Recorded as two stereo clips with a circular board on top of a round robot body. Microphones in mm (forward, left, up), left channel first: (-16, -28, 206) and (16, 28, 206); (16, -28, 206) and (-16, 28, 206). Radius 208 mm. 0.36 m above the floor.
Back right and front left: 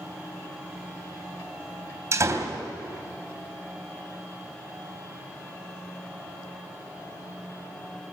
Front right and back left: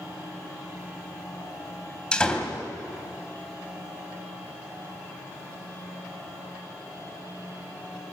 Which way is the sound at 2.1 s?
15° left.